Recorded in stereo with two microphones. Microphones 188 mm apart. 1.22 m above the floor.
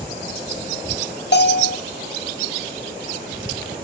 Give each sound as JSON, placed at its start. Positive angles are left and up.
{"t": 1.3, "sound": "a bell", "side_deg": 65, "distance_m": 0.7}